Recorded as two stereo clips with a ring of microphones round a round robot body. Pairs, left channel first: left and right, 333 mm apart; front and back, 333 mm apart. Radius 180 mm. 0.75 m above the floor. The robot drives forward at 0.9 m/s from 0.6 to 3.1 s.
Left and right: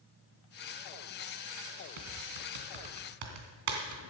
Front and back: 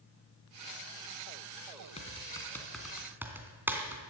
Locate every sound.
2.0 s typing on a keyboard: 70° right, 2.5 m; by 4.0 s 95° right, 2.5 m